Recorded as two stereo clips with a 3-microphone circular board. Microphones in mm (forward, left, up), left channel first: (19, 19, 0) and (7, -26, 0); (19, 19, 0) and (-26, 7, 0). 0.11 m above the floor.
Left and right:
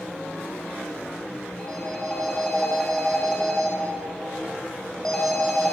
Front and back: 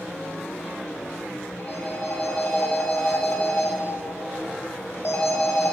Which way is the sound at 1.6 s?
Straight ahead.